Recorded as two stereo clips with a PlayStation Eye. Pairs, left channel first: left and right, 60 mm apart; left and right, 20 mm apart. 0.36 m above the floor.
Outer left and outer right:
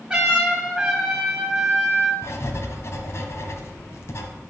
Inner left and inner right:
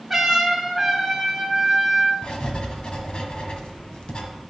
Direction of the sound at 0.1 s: 10° right (ahead or behind).